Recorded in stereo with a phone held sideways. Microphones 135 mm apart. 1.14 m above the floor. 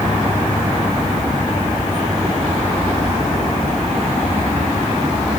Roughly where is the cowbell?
I don't hear a cowbell.